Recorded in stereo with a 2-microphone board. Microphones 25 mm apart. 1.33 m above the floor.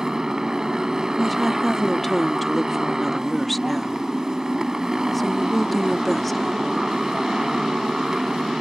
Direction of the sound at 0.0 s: 30° right (ahead or behind).